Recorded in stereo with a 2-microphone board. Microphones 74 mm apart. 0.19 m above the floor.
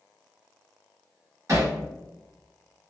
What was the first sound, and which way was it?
Hammering, 45° right (ahead or behind).